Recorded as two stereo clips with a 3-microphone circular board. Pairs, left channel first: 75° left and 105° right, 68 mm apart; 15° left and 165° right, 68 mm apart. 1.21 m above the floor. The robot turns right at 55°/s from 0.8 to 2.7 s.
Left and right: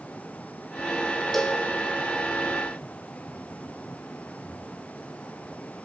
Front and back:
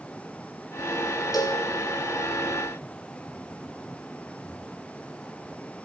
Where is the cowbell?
10° right, 3.5 m; by 1.6 s 5° left, 3.5 m.